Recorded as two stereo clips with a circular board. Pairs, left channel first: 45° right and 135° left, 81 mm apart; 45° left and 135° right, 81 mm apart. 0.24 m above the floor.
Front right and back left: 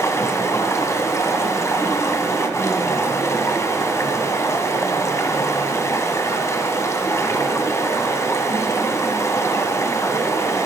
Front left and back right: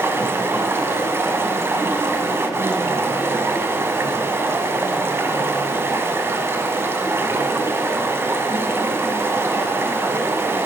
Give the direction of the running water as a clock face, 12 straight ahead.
3 o'clock.